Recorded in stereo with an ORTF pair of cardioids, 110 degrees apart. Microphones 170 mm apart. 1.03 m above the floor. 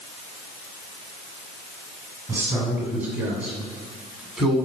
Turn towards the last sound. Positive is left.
turn(degrees=0)